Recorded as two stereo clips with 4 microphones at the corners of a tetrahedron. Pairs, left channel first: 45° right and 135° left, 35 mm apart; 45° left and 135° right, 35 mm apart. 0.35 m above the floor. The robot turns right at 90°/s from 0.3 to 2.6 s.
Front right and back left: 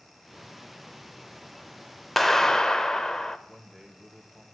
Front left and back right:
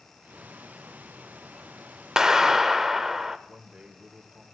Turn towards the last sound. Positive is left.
turn(degrees=-135)